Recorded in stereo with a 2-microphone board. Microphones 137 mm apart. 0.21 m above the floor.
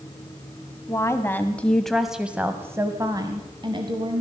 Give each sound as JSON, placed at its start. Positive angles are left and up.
{"t": 0.9, "sound": "a woman speaking", "side_deg": 20, "distance_m": 1.2}